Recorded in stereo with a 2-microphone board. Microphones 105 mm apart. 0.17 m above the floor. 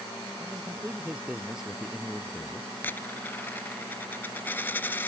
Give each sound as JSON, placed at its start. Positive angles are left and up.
{"t": 0.4, "sound": "a man speaking", "side_deg": -20}
{"t": 2.8, "sound": "a dropped coin", "side_deg": 20}